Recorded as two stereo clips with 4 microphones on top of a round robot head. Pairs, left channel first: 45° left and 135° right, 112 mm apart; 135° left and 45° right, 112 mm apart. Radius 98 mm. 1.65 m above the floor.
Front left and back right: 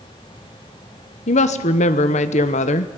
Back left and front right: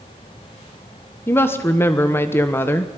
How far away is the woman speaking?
About 1.0 m.